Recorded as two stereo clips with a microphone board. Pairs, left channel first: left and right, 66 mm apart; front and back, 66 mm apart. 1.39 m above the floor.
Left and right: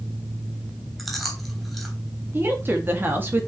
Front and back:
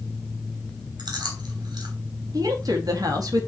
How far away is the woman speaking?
About 2.5 m.